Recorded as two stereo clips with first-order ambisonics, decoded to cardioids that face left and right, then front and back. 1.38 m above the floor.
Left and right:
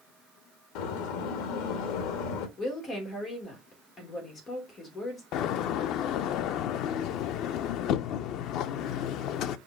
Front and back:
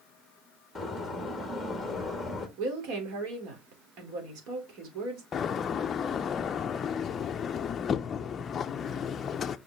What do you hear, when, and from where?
0.8 s a door slam: 85° left, 1.6 m
2.6 s a woman speaking: 150° left, 3.5 m
5.3 s a door slam: 60° left, 0.5 m